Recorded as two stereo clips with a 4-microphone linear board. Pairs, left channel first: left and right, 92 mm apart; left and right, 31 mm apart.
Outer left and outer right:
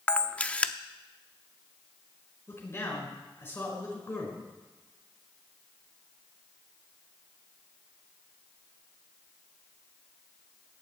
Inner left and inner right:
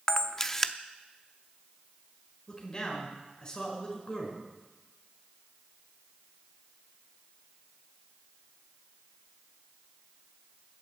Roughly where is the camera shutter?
Centre.